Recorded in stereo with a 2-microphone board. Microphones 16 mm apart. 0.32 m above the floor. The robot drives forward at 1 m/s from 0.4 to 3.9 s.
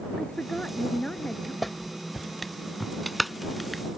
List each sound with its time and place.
0.2 s a woman speaking: 80° left; by 1.5 s 70° left (ahead or behind)
1.6 s a clap: 5° left (ahead or behind); by 3.8 s centre (ahead or behind)